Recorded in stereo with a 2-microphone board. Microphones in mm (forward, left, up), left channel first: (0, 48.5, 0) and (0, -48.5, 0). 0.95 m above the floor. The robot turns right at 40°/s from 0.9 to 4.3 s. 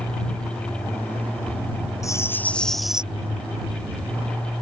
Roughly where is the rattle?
Behind left.